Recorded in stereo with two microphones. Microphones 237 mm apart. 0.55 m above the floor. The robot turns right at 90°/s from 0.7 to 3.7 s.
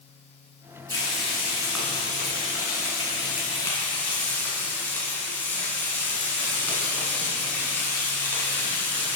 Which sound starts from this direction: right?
Frying, at 0.9 s.